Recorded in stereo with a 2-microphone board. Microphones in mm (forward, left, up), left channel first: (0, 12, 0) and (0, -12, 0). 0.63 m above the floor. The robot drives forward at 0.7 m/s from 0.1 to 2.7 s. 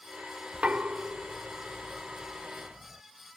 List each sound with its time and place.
0.5 s knocking: 70° right (ahead or behind); by 3.0 s 35° right (ahead or behind)